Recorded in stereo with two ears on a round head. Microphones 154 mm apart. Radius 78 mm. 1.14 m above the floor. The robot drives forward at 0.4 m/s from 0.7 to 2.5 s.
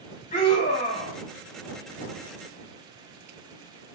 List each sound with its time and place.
0.3 s a scream: 50° left (ahead or behind), 2.5 m; by 1.2 s 45° left (ahead or behind), 2.5 m